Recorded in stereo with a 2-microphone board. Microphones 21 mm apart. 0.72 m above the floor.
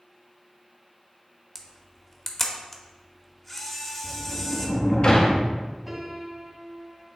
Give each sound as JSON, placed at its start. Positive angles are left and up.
{"t": 1.6, "sound": "a camera shutter", "side_deg": 15, "distance_m": 0.8}
{"t": 4.0, "sound": "a sliding door", "side_deg": 45, "distance_m": 0.8}
{"t": 5.9, "sound": "a piano", "side_deg": -20, "distance_m": 1.4}